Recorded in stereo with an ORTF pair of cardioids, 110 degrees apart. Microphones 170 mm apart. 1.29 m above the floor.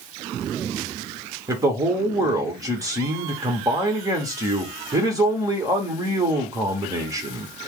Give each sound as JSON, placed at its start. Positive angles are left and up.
{"t": 1.5, "sound": "a man speaking", "azimuth_deg": -20, "distance_m": 1.9}